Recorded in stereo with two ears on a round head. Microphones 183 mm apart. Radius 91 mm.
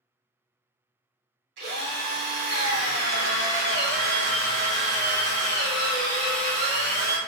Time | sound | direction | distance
1.6 | a drill | 55° right (ahead or behind) | 1.8 m